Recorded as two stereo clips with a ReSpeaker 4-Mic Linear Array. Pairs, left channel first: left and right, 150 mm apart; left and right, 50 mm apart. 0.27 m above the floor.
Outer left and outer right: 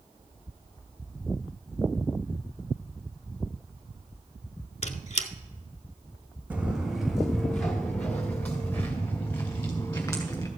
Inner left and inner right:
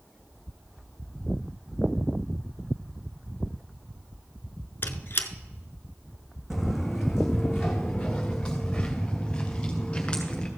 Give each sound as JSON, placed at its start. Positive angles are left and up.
{"t": 4.8, "sound": "a squeak", "side_deg": 50, "distance_m": 0.6}
{"t": 6.5, "sound": "footsteps", "side_deg": -10, "distance_m": 1.0}